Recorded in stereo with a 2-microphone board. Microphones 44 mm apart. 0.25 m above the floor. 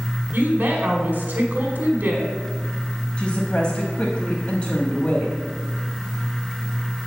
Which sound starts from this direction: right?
A woman speaking, at 0.3 s.